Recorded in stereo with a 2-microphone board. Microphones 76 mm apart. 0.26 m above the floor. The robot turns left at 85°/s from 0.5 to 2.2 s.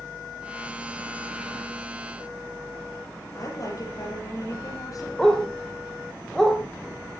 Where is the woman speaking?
45° left (ahead or behind), 7 m.